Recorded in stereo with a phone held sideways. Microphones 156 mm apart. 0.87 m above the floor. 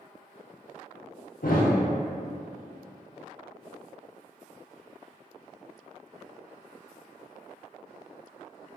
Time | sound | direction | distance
1.4 | a thud | 70° left (ahead or behind) | 0.7 m